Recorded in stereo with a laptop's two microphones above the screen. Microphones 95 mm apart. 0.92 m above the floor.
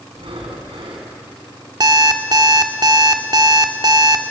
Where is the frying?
No frying in this recording.